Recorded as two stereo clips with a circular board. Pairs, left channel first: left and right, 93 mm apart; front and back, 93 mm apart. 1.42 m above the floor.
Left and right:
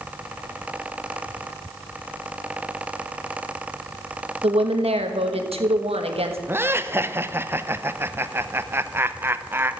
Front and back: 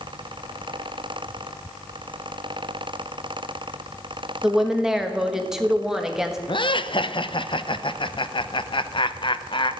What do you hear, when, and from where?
4.4 s a woman speaking: 95° right, 1.4 m
6.5 s laughter: 25° right, 0.7 m